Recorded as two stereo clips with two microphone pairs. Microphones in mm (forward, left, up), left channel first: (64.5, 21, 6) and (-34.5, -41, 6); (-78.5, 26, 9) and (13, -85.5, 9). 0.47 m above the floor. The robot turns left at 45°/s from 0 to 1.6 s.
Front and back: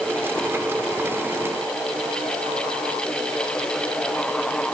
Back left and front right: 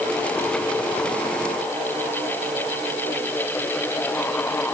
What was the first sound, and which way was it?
Only background noise.